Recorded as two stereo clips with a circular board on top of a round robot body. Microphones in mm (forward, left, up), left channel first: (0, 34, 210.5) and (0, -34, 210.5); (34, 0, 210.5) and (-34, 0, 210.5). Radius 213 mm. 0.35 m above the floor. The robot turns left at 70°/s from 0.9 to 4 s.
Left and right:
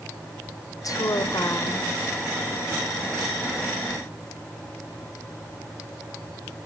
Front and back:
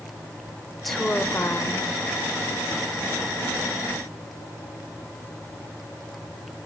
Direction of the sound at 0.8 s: 90° left.